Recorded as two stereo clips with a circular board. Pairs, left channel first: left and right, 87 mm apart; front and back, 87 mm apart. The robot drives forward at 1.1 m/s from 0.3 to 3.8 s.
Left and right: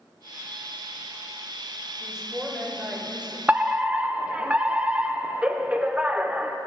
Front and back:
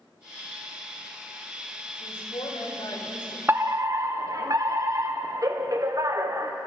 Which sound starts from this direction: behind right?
A fire alarm, at 3.5 s.